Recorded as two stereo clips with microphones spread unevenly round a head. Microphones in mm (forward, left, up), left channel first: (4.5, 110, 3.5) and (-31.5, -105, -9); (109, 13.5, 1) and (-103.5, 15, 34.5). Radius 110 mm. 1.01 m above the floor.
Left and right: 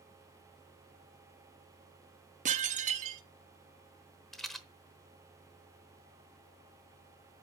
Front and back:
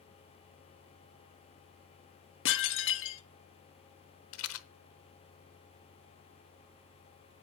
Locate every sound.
2.5 s dishes clattering: 40° right, 0.7 m
4.3 s a rattle: 5° right, 0.9 m